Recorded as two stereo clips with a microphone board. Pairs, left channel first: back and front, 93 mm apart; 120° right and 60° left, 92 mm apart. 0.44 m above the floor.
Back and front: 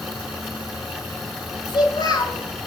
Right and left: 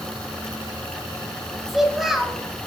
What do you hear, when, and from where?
1.7 s a child speaking: 145° left, 1.5 m